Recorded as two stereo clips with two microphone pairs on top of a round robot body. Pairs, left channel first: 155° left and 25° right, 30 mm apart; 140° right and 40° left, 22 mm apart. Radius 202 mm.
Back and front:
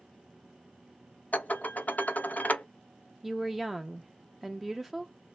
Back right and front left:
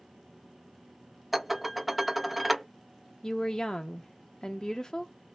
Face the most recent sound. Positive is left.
turn(degrees=-120)